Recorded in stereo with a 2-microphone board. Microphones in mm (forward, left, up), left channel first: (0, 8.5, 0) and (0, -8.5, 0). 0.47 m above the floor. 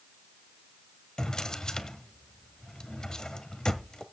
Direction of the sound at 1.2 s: 45° left (ahead or behind).